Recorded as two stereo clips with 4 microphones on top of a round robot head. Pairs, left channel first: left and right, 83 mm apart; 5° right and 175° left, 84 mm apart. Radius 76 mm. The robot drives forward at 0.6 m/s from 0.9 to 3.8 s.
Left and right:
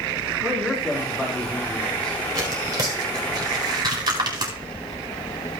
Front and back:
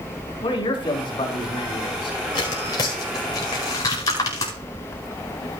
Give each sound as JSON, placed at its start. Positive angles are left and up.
{"t": 0.4, "sound": "a man speaking", "azimuth_deg": 5, "distance_m": 5.0}
{"t": 2.4, "sound": "tearing paper", "azimuth_deg": -45, "distance_m": 4.5}